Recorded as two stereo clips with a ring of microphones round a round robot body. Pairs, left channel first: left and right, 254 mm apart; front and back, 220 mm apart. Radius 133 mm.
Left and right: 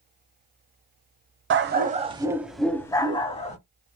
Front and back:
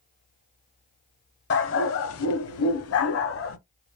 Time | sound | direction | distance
1.5 | a dog barking | 45° right | 0.7 m